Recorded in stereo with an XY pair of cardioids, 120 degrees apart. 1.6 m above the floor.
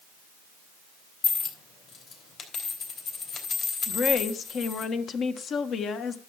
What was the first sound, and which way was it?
A dropped coin, 50° left.